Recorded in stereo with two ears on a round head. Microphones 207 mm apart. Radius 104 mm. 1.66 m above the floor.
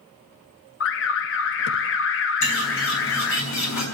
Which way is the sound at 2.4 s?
90° left.